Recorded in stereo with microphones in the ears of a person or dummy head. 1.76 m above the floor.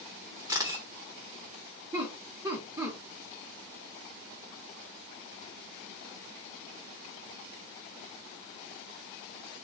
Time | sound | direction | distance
0.5 | a camera shutter | 25° right (ahead or behind) | 0.9 m
1.9 | laughter | 25° right (ahead or behind) | 0.8 m